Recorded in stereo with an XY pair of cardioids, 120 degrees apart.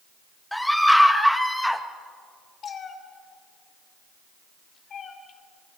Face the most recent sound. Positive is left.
turn(degrees=45)